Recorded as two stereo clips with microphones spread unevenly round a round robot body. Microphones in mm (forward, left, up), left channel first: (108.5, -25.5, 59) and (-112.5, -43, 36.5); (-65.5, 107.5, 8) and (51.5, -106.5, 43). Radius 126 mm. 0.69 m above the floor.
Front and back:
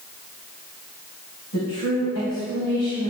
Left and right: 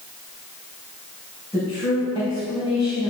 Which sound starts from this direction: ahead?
A woman speaking, at 1.5 s.